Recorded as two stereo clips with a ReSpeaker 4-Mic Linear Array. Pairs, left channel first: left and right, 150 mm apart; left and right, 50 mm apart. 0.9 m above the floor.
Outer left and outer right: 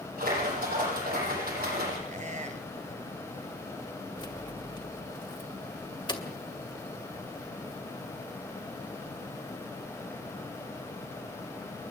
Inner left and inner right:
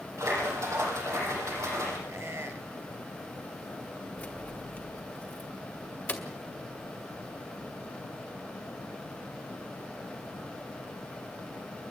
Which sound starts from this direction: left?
Keys jangling, at 4.2 s.